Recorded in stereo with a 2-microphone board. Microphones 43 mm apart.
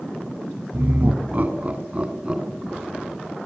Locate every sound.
0.7 s laughter: 55° right (ahead or behind), 3 m; by 3.4 s 10° right (ahead or behind), 4 m